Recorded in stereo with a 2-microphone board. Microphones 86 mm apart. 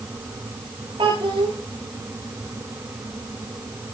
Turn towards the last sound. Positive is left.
turn(degrees=-80)